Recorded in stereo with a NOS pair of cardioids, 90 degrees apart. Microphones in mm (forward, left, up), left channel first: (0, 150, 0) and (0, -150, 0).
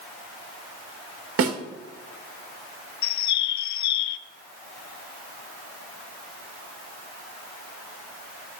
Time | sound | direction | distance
1.4 | a snare drum | 50° right | 1.9 m
3.0 | a bird | 65° left | 0.6 m